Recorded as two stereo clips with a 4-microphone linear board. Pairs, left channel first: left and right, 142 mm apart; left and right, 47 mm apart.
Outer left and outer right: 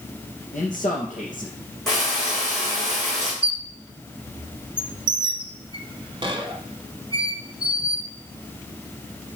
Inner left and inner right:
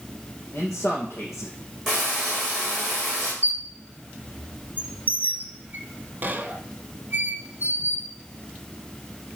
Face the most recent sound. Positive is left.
turn(degrees=-30)  # may be behind; listen again after turning